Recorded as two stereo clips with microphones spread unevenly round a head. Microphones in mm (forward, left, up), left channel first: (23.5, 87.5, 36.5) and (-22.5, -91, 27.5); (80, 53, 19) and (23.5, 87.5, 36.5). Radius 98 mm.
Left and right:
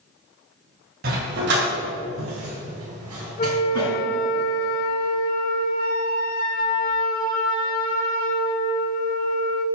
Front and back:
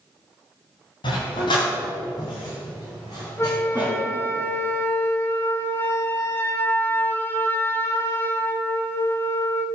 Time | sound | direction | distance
1.0 | a dog barking | 65° right | 3 m
3.4 | a flute | 30° left | 1.3 m